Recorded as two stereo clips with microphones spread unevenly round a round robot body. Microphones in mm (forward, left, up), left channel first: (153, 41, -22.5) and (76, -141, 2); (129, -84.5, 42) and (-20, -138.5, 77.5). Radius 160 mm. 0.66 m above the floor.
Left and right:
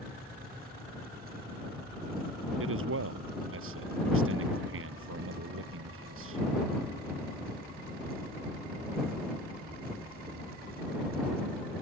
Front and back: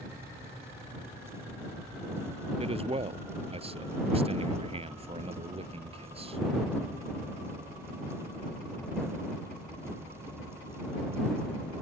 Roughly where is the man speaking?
Right.